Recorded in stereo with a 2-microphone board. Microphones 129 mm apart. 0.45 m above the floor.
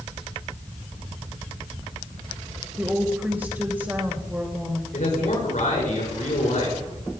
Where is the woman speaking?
15° right (ahead or behind), 2 m.